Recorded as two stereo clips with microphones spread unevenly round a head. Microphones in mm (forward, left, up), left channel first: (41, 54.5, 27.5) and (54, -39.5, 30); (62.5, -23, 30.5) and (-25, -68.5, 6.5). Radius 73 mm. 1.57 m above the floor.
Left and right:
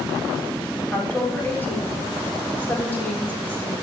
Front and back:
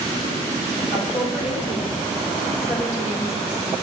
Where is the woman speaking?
25° left, 6 m.